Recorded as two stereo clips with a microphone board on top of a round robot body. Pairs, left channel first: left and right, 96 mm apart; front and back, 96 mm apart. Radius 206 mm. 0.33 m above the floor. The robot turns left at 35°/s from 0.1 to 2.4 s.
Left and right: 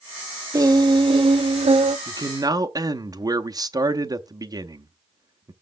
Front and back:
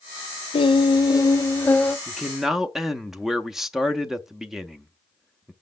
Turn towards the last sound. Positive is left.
turn(degrees=-95)